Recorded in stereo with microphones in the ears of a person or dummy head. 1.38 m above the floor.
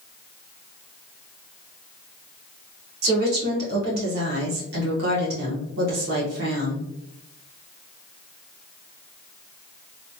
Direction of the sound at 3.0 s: 50° right (ahead or behind).